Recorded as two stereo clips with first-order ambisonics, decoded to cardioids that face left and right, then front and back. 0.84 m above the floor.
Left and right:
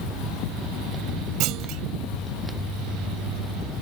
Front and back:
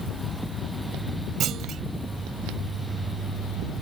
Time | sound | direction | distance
1.4 | a clunk | 125° right | ?